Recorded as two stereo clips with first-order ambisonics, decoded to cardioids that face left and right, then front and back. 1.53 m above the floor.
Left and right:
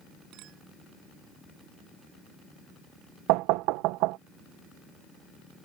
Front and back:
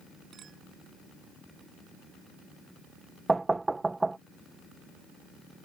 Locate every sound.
0.3 s a clink: 120° right
3.3 s knocking: 100° right